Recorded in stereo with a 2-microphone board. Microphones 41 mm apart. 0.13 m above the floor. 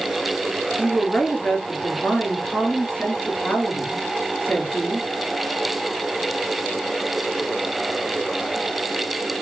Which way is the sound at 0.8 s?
35° left (ahead or behind).